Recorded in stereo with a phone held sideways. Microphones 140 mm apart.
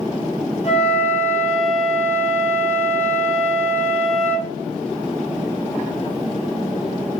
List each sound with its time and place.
0.6 s a flute: 55° left (ahead or behind), 1.3 m